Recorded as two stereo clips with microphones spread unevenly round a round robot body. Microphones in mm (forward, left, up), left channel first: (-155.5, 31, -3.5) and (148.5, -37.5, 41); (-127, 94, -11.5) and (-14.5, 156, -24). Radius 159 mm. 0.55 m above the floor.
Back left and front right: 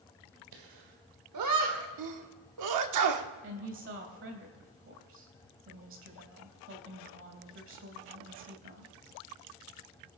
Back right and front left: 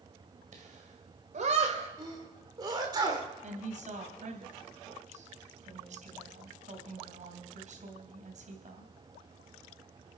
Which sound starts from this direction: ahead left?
A woman speaking, at 3.4 s.